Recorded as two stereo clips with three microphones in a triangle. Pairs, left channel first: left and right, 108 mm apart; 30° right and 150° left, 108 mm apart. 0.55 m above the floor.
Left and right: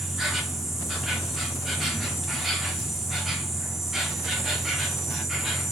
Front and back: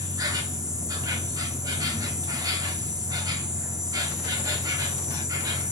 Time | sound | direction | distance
0.0 | an insect | 175° right | 0.9 m